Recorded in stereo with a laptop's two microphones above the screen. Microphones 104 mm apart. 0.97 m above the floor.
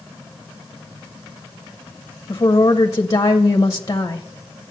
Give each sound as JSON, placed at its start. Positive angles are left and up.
{"t": 2.3, "sound": "a woman speaking", "side_deg": 35, "distance_m": 0.8}